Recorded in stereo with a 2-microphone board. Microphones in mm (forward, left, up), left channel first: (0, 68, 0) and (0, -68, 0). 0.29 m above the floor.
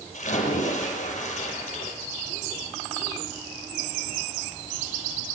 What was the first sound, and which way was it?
A splash, 55° left (ahead or behind).